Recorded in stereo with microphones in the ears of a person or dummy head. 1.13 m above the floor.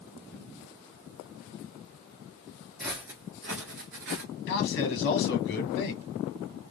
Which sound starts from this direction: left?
A man speaking, at 4.5 s.